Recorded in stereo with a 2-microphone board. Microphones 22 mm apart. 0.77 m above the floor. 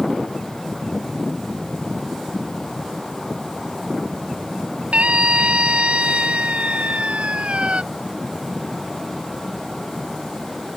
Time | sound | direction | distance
4.9 | a scream | 75° right (ahead or behind) | ?